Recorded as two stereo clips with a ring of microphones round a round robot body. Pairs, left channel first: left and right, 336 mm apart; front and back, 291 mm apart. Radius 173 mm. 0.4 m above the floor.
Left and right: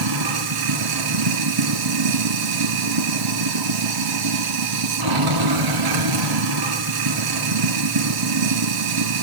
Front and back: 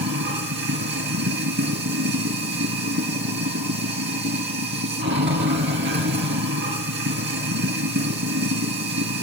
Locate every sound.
0.0 s running water: 120° right, 2.0 m